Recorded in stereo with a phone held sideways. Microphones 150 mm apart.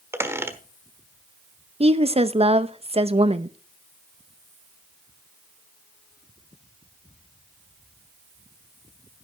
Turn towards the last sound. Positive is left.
turn(degrees=-40)  # may be behind; listen again after turning